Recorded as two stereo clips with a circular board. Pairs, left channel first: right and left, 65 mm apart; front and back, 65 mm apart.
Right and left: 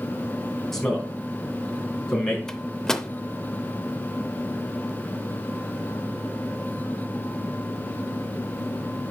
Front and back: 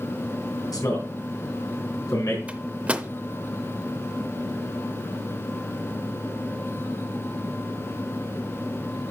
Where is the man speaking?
5° right, 3.5 m.